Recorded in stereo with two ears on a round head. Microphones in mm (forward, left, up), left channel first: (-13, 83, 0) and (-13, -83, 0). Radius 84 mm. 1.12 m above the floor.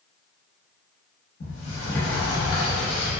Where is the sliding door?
55° left (ahead or behind), 0.8 m.